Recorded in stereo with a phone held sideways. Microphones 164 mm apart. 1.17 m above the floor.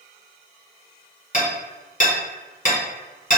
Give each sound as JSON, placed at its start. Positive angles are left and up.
{"t": 1.3, "sound": "hammering", "side_deg": 50, "distance_m": 0.8}